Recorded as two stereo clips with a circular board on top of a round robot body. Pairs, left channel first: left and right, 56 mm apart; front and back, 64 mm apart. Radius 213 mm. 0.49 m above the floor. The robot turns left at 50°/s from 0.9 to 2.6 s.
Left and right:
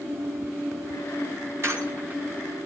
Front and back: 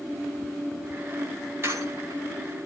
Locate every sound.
1.6 s a squeak: 130° right, 5.5 m; by 2.2 s 160° right, 5.5 m